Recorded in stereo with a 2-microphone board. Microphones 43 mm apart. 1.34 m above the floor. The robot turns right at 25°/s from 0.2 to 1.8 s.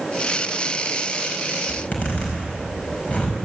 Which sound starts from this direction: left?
A zipper, at 1.7 s.